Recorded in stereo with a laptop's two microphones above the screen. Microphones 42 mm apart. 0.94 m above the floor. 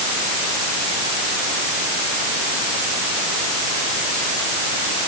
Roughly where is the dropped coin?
I don't hear a dropped coin.